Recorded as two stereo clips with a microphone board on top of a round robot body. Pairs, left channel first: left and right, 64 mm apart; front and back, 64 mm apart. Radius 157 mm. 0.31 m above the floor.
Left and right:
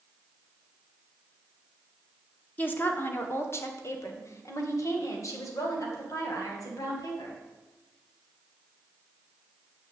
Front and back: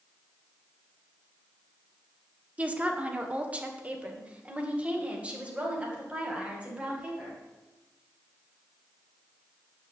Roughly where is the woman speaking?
Behind left.